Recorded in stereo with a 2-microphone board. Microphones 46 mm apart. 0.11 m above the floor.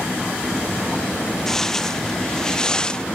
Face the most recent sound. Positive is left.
turn(degrees=20)  # may be behind; listen again after turning